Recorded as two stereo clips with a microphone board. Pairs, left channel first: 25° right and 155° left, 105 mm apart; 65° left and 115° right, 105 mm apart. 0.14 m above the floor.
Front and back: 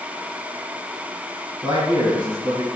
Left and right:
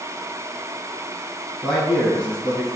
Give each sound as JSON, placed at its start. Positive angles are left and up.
{"t": 1.6, "sound": "a man speaking", "azimuth_deg": 155, "distance_m": 1.7}